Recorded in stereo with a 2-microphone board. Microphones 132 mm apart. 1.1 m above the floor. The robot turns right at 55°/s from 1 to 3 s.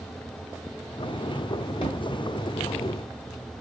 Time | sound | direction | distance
1.8 | a thud | 45° left (ahead or behind) | 1.8 m